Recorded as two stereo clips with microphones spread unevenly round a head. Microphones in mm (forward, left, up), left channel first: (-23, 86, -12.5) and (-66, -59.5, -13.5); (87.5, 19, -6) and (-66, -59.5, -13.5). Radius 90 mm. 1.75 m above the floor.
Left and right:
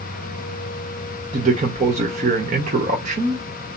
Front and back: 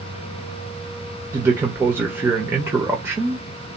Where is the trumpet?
No trumpet in this recording.